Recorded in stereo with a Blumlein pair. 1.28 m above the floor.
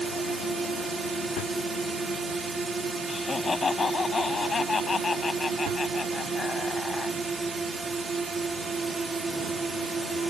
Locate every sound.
0.0 s a drone: 15° right
3.1 s laughter: 15° left